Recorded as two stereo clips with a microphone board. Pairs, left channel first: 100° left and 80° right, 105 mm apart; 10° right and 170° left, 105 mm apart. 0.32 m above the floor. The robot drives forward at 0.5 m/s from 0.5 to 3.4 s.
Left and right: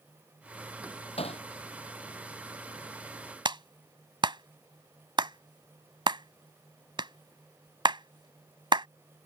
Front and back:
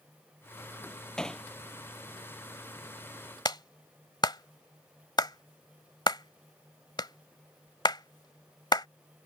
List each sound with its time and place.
1.2 s hammering: 75° left
3.5 s a clap: 50° right